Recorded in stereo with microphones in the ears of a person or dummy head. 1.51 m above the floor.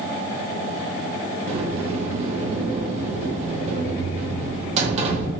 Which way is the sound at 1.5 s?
40° right (ahead or behind).